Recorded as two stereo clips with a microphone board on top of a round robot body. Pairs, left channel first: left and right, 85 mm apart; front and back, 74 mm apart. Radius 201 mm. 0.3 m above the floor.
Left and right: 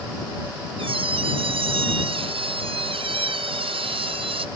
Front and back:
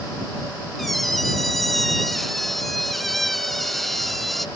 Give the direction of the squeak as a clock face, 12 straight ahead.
3 o'clock.